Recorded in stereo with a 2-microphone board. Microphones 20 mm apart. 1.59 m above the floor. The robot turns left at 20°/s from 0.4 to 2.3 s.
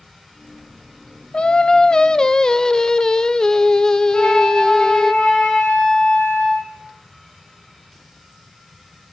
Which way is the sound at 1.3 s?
55° left (ahead or behind).